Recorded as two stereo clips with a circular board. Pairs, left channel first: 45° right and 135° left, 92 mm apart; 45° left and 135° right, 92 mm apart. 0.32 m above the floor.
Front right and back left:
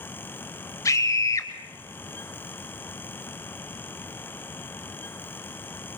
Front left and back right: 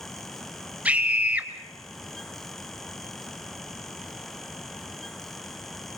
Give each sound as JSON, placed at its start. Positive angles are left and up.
{"t": 0.8, "sound": "a scream", "azimuth_deg": -70, "distance_m": 1.3}